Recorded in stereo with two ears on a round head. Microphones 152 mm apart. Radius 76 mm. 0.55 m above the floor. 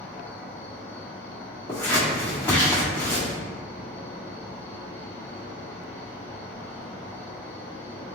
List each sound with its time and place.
0.0 s an insect: 15° left (ahead or behind), 0.9 m
1.7 s scissors: 15° left (ahead or behind), 1.4 m